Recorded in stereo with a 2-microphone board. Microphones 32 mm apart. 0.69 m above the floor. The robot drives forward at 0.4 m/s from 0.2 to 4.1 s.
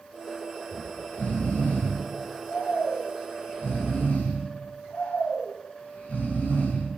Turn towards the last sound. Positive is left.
turn(degrees=50)  # may be behind; listen again after turning